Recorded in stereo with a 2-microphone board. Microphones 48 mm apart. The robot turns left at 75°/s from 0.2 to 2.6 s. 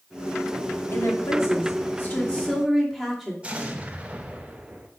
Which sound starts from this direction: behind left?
A woman speaking, at 0.9 s.